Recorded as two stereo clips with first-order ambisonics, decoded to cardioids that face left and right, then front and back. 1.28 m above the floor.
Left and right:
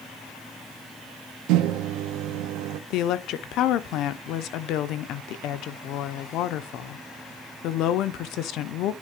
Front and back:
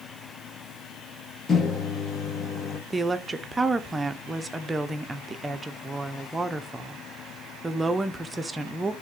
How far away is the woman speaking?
About 0.6 m.